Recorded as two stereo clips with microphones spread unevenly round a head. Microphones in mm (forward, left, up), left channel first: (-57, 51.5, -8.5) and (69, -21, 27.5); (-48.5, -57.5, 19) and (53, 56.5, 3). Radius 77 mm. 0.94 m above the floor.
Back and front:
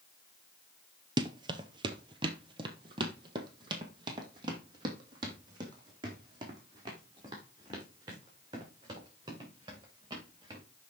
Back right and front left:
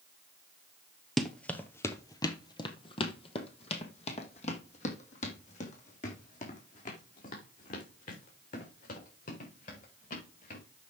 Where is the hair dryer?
I don't hear a hair dryer.